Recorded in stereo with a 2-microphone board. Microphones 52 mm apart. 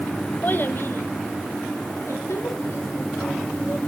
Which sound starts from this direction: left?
A child speaking, at 0.4 s.